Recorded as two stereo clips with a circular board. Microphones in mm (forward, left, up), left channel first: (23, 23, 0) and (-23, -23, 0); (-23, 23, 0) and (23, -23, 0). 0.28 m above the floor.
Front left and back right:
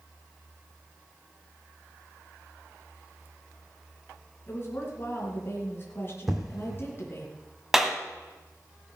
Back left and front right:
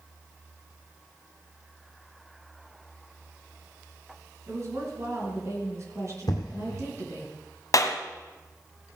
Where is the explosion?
140° left, 2 m.